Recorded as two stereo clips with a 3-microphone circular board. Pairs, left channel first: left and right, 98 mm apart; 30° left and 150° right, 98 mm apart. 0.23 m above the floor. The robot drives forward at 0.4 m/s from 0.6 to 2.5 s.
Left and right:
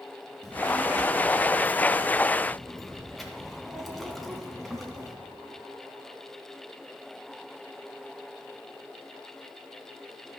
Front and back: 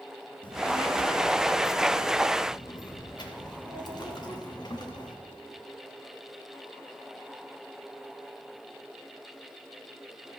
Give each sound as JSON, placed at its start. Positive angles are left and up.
{"t": 0.4, "sound": "a child speaking", "azimuth_deg": 0, "distance_m": 2.5}